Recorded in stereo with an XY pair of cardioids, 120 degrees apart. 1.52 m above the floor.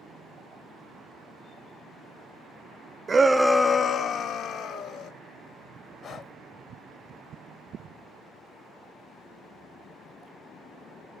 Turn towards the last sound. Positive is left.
turn(degrees=55)